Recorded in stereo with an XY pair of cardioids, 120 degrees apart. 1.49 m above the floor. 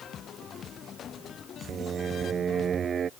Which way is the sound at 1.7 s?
40° right.